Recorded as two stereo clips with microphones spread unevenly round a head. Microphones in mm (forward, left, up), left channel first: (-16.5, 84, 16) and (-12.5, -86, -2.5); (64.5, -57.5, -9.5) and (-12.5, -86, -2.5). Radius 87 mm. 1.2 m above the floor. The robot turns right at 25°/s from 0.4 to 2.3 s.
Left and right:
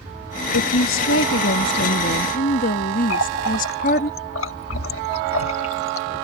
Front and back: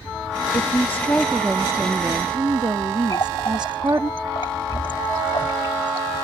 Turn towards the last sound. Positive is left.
turn(degrees=85)